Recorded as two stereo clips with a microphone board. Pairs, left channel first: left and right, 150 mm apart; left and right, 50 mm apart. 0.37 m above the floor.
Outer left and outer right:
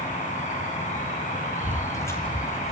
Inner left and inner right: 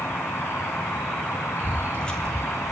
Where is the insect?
60° left (ahead or behind), 4 m.